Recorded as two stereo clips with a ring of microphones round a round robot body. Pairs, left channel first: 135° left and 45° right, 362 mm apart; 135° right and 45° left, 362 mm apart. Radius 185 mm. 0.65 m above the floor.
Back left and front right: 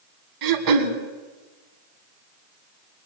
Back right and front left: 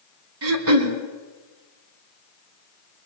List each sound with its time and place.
0.4 s throat clearing: 10° right, 2 m